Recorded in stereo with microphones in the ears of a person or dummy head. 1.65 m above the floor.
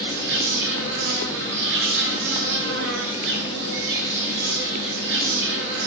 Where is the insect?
65° right (ahead or behind), 0.7 m.